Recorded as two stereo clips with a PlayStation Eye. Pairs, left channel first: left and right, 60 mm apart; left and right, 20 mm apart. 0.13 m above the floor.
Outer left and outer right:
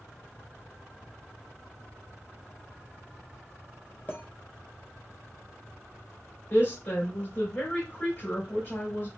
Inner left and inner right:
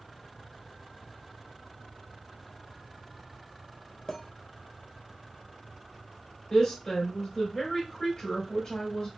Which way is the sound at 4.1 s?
30° left (ahead or behind).